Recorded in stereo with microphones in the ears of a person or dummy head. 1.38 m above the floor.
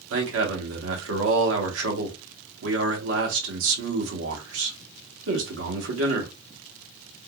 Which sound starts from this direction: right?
A man speaking, at 0.1 s.